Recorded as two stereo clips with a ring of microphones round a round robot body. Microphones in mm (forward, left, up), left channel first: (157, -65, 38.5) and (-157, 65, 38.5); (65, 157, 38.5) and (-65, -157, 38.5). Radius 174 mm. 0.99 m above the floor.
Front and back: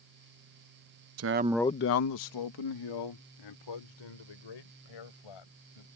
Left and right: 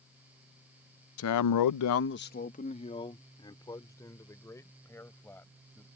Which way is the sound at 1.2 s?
115° left.